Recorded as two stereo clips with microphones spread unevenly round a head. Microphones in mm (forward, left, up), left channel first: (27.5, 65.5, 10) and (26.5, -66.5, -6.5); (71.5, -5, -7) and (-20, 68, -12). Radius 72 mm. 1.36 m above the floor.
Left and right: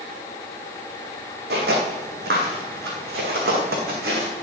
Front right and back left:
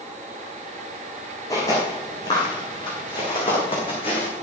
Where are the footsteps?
105° right, 3.5 m; by 4.3 s 85° right, 4.5 m.